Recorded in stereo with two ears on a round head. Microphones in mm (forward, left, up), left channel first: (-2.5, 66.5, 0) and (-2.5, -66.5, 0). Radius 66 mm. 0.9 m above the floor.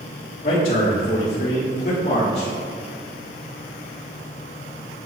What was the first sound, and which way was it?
A man speaking, 65° left (ahead or behind).